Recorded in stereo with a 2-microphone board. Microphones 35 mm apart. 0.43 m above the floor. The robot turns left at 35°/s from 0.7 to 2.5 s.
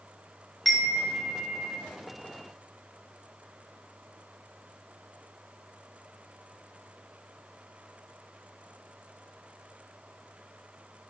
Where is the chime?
Straight ahead, 1.2 m; by 1.8 s 40° right, 1.2 m.